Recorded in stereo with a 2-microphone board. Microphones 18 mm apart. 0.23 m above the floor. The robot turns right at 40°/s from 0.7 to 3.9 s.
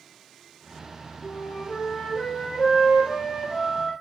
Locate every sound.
1.2 s a flute: 40° left, 5.5 m; by 3.9 s 150° left, 5.5 m